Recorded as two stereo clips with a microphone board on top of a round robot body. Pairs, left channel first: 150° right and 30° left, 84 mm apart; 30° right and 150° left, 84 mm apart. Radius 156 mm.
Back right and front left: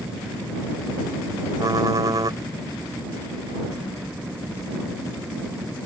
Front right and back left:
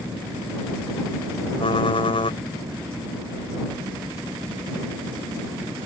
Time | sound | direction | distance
1.6 | typing on a keyboard | 15° right | ?